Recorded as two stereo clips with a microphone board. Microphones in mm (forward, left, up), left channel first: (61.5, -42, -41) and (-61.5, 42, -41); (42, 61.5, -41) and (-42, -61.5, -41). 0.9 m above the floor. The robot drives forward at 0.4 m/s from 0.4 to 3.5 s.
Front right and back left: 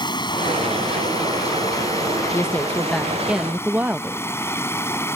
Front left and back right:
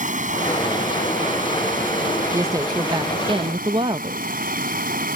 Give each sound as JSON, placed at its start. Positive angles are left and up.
{"t": 0.0, "sound": "running water", "azimuth_deg": -95}
{"t": 2.3, "sound": "a woman speaking", "azimuth_deg": -80}